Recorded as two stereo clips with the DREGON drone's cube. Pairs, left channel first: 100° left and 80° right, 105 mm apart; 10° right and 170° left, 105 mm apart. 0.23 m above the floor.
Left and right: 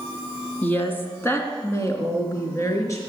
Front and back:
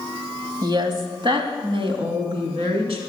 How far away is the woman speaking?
About 1.8 m.